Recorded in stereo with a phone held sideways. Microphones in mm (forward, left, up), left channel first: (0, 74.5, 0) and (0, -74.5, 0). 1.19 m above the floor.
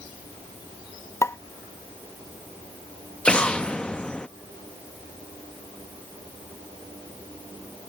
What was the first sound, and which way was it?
A pop, 20° left (ahead or behind).